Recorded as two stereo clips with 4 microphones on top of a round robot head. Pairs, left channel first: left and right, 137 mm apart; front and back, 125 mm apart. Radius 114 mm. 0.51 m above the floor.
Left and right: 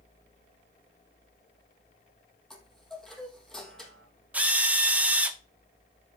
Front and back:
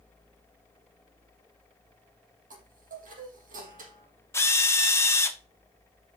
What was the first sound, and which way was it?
A chime, 175° left.